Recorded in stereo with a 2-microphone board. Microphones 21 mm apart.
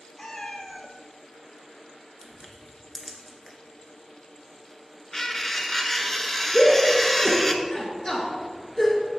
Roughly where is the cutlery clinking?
Left.